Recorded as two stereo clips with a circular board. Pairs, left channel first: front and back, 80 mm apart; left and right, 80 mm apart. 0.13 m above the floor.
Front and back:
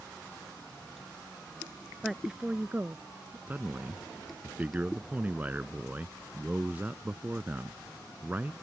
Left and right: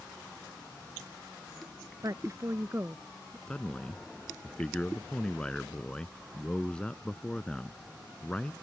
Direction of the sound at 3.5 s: 150° left.